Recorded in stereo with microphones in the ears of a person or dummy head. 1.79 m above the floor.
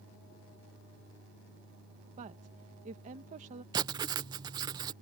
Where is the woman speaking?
40° right (ahead or behind).